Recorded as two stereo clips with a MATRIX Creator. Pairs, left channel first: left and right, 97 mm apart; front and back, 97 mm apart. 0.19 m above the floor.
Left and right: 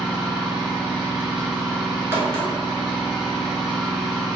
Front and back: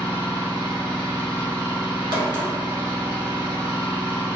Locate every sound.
0.0 s an engine running: 165° right, 0.9 m
2.1 s a crack: 150° right, 1.0 m